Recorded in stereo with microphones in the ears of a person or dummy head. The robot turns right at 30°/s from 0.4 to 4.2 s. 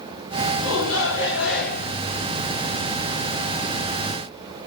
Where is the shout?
90° left, 4.5 m; by 1.9 s 130° left, 4.5 m.